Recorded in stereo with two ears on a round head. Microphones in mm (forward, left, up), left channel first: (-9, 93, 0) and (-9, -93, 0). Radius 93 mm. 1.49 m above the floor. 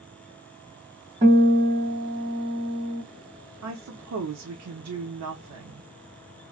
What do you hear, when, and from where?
1.2 s a guitar: 30° right (ahead or behind), 2 m
3.6 s a woman speaking: 80° right, 0.7 m